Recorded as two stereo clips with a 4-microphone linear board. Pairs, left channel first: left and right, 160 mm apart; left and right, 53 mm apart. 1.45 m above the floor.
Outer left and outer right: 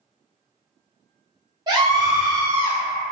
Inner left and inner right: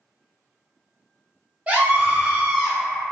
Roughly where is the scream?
Right.